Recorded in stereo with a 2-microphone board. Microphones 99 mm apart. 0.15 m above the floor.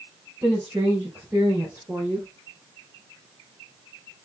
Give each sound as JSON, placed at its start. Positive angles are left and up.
{"t": 0.4, "sound": "a woman speaking", "side_deg": -25, "distance_m": 4.5}